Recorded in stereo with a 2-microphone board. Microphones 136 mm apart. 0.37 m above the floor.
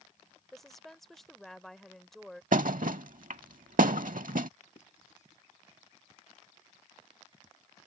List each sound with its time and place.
0.5 s a woman speaking: centre (ahead or behind)
2.5 s a thud: 80° right
4.8 s writing: 60° left (ahead or behind)